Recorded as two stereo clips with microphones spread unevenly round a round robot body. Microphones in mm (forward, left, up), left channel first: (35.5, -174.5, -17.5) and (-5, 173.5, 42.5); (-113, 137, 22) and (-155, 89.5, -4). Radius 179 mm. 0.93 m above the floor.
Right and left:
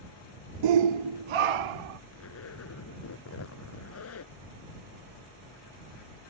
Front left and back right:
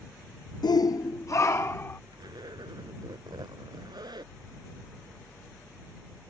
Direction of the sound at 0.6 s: 75° left.